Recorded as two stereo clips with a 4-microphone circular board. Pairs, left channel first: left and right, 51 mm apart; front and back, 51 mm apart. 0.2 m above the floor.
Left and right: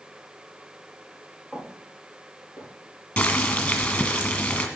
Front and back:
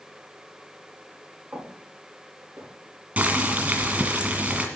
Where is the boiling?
145° left, 1.7 m.